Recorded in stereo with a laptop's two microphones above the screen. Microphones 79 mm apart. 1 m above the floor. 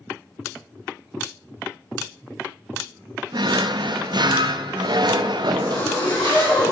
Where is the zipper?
80° left, 3.5 m.